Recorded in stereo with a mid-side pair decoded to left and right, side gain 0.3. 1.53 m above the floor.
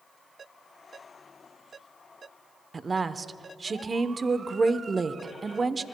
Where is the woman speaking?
40° right, 0.9 m.